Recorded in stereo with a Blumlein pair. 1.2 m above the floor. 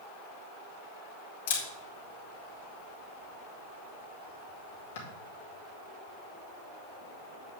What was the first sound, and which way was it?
A camera shutter, 60° left.